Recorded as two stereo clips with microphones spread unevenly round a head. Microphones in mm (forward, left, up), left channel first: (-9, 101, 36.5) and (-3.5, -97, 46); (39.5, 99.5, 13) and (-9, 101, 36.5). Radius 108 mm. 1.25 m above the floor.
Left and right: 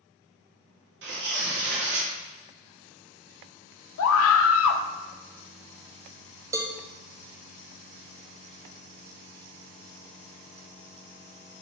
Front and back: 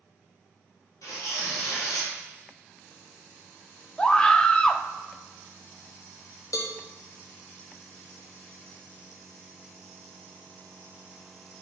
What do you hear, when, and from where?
1.0 s tearing paper: 55° right, 1.8 m
4.0 s a scream: 75° left, 0.6 m
6.5 s a cowbell: 15° right, 0.5 m